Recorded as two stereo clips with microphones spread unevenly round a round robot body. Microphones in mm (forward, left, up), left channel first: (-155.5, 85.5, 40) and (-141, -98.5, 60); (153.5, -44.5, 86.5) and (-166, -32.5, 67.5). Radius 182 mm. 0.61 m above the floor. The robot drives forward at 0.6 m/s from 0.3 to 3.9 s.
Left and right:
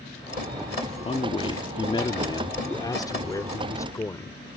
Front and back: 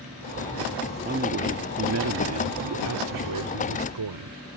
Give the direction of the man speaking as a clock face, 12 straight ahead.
8 o'clock.